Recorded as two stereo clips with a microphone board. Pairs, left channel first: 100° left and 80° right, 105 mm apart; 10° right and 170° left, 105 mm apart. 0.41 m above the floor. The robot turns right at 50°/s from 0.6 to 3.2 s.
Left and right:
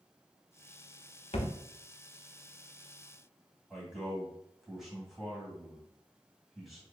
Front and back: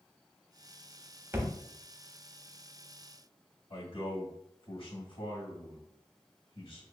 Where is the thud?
105° left, 0.7 m; by 1.5 s 115° left, 0.7 m.